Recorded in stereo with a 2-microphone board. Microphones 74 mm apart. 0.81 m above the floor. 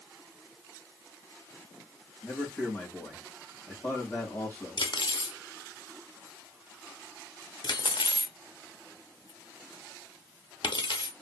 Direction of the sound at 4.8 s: 75° left (ahead or behind).